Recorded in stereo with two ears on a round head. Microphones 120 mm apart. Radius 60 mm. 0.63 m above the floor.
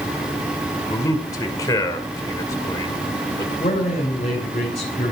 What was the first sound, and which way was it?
A man speaking, 25° left (ahead or behind).